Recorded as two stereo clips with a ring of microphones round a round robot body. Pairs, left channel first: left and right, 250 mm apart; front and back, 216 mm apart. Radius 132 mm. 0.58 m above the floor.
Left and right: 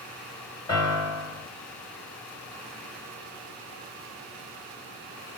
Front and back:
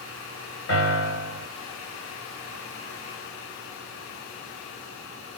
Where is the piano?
15° left, 1.9 m.